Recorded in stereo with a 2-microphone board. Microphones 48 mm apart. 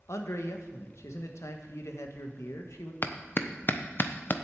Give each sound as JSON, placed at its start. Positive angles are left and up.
{"t": 0.1, "sound": "a man speaking", "side_deg": 75, "distance_m": 1.3}
{"t": 3.0, "sound": "a clap", "side_deg": 45, "distance_m": 0.7}